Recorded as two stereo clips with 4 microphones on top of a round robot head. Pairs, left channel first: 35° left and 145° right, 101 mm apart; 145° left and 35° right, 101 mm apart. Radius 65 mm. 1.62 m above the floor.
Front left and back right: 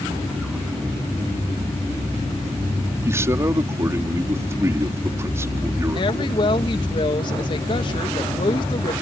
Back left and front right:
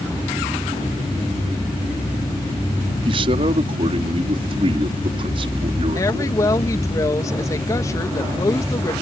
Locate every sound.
3.0 s a man speaking: 80° right
6.0 s a woman speaking: 80° left